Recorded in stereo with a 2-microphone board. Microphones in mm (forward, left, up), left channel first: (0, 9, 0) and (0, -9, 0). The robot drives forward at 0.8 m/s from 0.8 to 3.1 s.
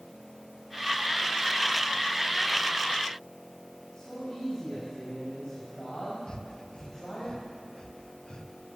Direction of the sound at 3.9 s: 55° left (ahead or behind).